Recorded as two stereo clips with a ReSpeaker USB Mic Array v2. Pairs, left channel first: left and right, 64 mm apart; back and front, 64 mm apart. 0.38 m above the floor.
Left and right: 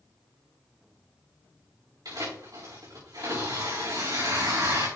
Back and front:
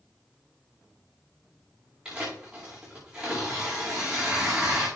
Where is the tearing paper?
80° right, 5.5 m.